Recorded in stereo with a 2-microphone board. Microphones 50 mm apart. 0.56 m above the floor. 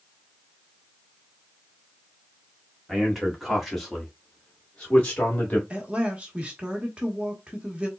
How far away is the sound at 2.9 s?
About 1.7 m.